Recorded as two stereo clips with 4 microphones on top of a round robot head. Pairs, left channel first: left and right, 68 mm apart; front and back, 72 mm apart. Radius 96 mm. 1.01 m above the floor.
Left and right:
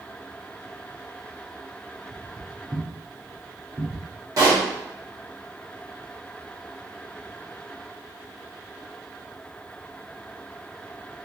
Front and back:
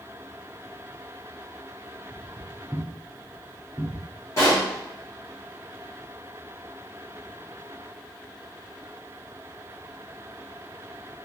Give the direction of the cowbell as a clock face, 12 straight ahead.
I don't hear a cowbell.